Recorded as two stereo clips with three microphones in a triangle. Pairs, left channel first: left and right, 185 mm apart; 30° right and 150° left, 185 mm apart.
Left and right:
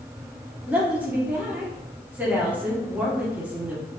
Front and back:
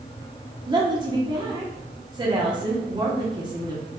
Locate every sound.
0.7 s a woman speaking: 165° right, 1.0 m